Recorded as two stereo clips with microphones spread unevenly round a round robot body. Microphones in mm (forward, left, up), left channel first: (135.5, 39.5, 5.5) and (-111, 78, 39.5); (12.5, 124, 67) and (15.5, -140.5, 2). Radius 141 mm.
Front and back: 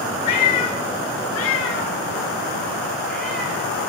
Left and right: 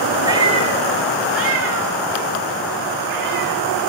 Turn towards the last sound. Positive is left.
turn(degrees=-100)